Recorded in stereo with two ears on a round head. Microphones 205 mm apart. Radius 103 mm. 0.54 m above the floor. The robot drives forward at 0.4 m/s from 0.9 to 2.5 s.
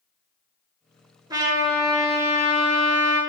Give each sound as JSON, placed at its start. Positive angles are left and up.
{"t": 1.3, "sound": "a trumpet", "side_deg": -15, "distance_m": 1.3}